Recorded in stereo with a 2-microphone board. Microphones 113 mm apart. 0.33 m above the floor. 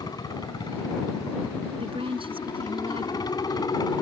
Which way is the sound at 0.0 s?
35° left (ahead or behind).